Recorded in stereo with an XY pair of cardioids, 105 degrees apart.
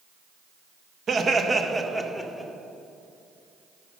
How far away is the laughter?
About 1.1 m.